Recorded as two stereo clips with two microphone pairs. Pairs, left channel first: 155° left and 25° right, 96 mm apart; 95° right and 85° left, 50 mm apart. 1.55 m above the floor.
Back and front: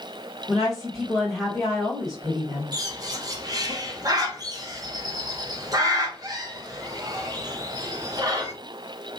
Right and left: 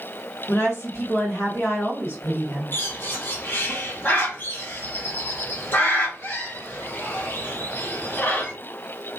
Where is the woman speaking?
120° right, 2.0 m.